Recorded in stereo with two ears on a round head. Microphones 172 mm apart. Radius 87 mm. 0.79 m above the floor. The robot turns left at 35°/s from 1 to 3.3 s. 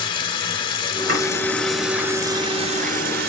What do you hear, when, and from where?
0.0 s running water: 25° left, 1.1 m; by 3.3 s 55° right, 1.1 m
1.1 s chopping: 50° right (ahead or behind), 4.5 m